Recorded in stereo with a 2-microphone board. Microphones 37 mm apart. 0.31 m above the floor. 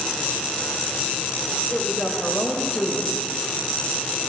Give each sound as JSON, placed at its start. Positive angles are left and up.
{"t": 1.7, "sound": "a woman speaking", "side_deg": 30, "distance_m": 1.4}